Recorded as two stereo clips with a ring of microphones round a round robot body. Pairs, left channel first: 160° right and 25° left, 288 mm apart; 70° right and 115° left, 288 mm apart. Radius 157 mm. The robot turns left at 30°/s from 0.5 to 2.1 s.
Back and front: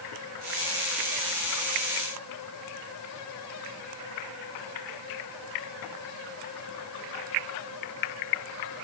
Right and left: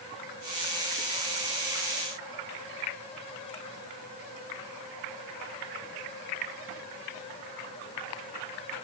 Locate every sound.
Only background noise.